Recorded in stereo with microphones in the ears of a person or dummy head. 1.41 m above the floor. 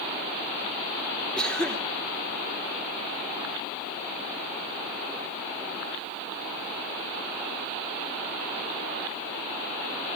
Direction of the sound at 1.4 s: 5° left (ahead or behind).